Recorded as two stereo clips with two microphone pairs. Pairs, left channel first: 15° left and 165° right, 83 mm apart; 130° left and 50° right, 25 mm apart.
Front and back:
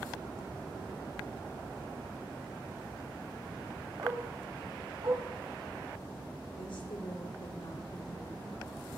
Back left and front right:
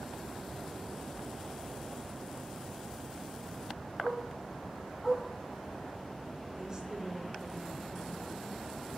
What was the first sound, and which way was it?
A dog barking, 135° right.